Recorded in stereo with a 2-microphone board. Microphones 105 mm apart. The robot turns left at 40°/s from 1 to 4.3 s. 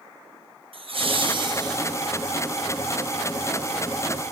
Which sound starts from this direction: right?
Laughter, at 0.7 s.